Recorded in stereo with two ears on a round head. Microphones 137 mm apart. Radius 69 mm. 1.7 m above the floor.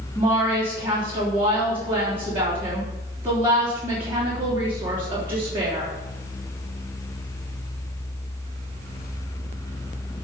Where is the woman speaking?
15° right (ahead or behind), 3.5 m.